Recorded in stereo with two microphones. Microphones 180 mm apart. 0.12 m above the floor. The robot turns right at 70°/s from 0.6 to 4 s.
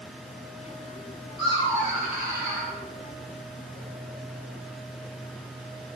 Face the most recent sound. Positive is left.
turn(degrees=35)